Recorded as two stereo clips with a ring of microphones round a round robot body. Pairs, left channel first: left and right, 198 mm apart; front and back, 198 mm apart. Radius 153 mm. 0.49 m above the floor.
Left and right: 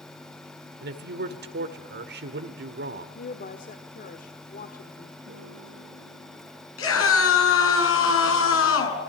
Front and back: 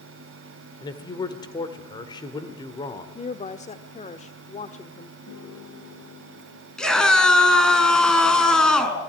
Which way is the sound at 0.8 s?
70° right.